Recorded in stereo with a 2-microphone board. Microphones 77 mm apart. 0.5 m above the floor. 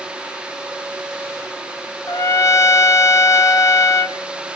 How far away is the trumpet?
About 0.6 m.